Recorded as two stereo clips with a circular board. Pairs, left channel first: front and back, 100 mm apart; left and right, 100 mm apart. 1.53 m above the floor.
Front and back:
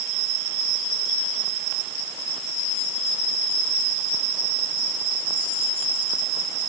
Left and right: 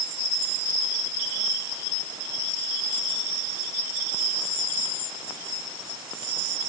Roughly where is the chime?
No chime in this recording.